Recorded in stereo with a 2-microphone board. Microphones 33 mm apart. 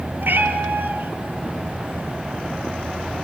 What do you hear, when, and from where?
0.2 s a cat meowing: 85° right, 1.9 m